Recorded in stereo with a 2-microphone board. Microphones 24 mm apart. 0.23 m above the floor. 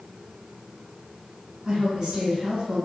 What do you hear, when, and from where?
1.6 s a woman speaking: 35° right (ahead or behind), 1.6 m